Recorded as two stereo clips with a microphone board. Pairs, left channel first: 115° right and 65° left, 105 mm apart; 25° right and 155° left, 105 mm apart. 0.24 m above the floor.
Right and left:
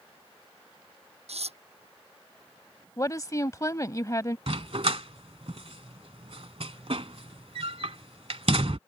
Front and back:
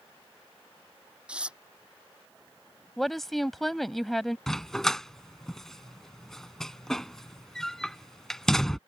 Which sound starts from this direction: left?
Tearing paper, at 1.3 s.